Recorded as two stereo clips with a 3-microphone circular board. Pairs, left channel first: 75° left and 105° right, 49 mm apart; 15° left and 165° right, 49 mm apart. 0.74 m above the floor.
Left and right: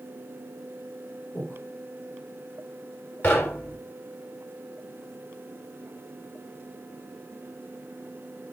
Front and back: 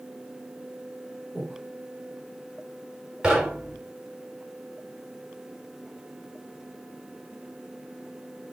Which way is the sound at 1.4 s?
110° left.